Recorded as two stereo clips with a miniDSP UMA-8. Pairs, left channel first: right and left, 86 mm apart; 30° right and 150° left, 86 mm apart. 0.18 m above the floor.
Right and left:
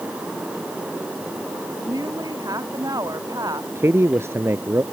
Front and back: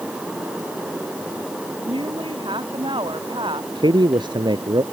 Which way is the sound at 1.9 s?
135° left.